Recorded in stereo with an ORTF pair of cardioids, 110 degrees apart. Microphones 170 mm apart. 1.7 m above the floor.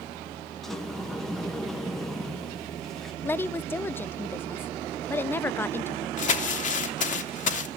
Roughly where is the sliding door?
Ahead.